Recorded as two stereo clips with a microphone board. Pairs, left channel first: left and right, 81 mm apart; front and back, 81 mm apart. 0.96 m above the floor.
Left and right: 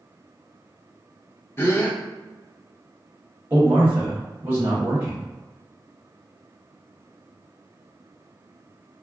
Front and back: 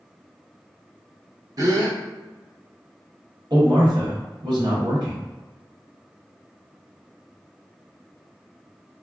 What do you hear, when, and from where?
1.6 s a gasp: 145° left, 0.7 m
3.5 s a man speaking: 155° right, 1.1 m